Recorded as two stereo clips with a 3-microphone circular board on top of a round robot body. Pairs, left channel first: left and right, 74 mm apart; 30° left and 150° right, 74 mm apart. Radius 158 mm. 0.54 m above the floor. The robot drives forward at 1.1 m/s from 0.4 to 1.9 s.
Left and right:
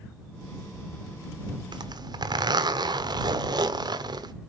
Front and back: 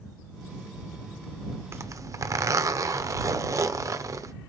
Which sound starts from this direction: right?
A zipper, at 1.7 s.